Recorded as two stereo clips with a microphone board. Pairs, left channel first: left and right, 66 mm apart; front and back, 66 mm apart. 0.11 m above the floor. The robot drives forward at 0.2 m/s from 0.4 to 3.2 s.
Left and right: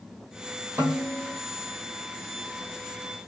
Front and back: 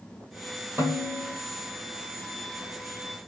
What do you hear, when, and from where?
0.8 s a snare drum: 145° right, 1.3 m